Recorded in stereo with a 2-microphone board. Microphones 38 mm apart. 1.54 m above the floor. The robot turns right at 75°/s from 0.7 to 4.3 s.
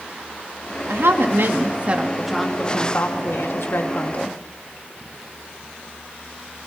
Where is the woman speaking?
110° right, 3 m; by 4.4 s 145° left, 3 m.